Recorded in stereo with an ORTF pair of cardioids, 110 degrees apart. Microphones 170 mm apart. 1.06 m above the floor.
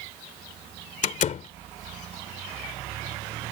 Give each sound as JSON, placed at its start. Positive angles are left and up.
{"t": 1.0, "sound": "a door slam", "azimuth_deg": 45}